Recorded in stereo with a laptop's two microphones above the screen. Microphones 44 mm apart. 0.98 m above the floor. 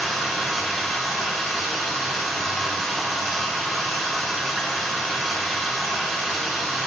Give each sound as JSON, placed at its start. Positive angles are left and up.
{"t": 0.0, "sound": "running water", "side_deg": 0, "distance_m": 3.5}